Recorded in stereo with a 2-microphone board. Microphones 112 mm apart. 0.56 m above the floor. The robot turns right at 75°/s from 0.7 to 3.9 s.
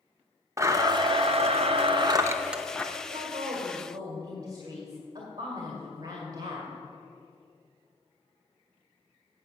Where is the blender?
150° right, 0.7 m; by 2.8 s 10° left, 0.7 m.